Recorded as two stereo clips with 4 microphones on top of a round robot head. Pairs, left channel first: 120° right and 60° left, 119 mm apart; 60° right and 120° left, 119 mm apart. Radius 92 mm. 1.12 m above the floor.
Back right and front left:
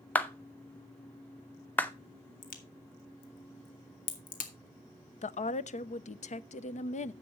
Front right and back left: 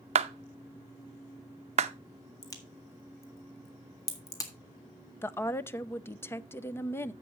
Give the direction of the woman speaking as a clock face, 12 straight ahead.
4 o'clock.